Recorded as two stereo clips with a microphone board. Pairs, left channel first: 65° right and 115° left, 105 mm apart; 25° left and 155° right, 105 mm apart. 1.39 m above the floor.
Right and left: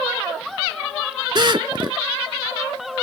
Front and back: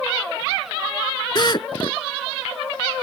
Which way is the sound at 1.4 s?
70° left.